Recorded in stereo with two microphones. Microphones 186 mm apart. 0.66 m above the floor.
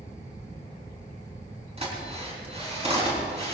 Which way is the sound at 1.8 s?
35° right (ahead or behind).